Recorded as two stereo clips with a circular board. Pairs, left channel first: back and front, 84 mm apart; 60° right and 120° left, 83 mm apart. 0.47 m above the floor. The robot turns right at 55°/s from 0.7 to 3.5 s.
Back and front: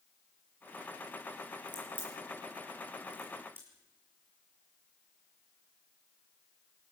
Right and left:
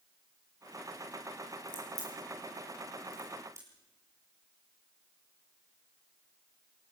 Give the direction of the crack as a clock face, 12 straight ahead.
1 o'clock.